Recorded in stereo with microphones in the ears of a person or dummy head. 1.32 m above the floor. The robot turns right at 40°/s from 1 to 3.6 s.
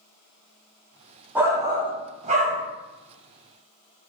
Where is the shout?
165° right, 0.5 m; by 2.7 s 115° right, 0.5 m.